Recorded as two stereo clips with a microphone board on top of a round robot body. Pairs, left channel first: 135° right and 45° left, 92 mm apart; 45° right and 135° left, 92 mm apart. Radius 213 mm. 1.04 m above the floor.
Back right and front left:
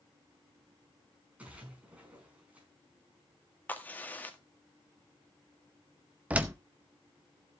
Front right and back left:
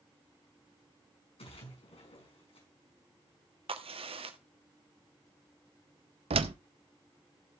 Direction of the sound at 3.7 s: 155° left.